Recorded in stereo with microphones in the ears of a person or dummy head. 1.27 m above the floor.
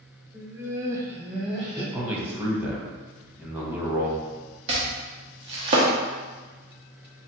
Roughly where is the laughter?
Centre.